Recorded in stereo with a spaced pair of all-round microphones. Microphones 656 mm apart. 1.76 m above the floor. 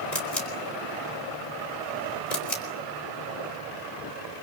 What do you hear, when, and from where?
0.1 s a camera shutter: 80° left, 4.5 m